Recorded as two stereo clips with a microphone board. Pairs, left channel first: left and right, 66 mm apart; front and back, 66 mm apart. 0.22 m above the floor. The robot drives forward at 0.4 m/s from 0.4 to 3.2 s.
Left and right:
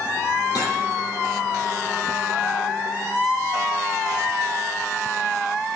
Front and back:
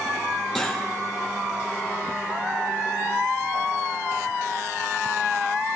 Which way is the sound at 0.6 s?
90° left.